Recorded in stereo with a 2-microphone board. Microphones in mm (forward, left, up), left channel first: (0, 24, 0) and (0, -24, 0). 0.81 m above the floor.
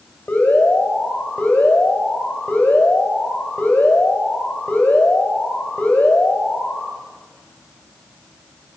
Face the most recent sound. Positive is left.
turn(degrees=40)  # may be behind; listen again after turning